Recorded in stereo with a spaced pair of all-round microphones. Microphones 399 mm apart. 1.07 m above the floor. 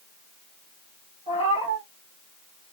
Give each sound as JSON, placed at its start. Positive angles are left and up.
{"t": 1.3, "sound": "a cat meowing", "side_deg": 15, "distance_m": 2.5}